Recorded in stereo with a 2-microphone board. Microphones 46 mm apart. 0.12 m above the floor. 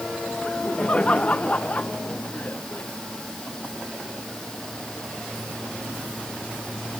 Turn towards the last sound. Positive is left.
turn(degrees=35)  # may be behind; listen again after turning